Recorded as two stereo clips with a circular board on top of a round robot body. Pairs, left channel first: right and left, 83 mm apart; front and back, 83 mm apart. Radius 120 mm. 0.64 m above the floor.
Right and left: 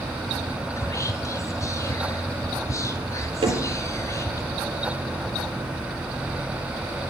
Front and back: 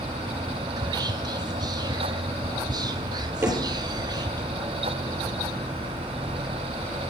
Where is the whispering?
145° right, 1.5 m.